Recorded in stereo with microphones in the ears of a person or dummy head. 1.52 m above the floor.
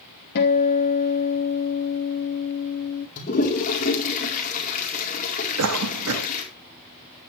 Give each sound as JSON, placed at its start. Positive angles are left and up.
{"t": 0.3, "sound": "a guitar", "side_deg": 65, "distance_m": 3.0}
{"t": 3.2, "sound": "a toilet flushing", "side_deg": 50, "distance_m": 4.5}
{"t": 5.6, "sound": "a cough", "side_deg": -85, "distance_m": 2.5}